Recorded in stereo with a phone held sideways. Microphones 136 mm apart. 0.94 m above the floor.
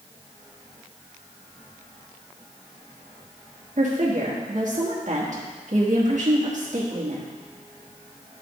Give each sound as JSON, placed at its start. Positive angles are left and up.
{"t": 3.8, "sound": "a woman speaking", "side_deg": -60, "distance_m": 1.3}